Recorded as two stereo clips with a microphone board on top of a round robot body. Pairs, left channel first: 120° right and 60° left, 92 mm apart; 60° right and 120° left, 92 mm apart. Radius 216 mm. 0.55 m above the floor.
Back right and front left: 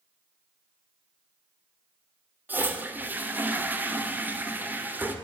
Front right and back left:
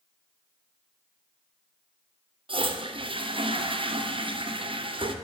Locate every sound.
2.5 s a toilet flushing: 130° left, 2.5 m